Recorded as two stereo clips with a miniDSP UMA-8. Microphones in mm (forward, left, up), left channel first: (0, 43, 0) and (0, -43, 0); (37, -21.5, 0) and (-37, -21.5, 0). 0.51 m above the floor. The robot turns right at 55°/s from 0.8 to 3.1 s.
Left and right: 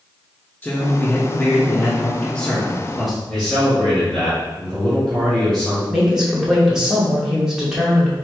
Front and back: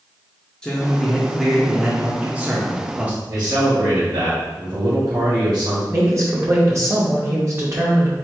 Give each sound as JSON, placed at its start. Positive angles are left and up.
{"t": 0.6, "sound": "a man speaking", "azimuth_deg": 60, "distance_m": 0.8}
{"t": 3.3, "sound": "a man speaking", "azimuth_deg": 175, "distance_m": 1.9}
{"t": 5.9, "sound": "a woman speaking", "azimuth_deg": -170, "distance_m": 0.9}